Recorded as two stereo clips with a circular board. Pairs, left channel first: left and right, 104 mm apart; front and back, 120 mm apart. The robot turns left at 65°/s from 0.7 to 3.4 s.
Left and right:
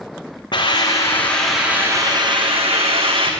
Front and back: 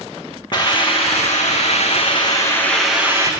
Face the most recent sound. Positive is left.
turn(degrees=-125)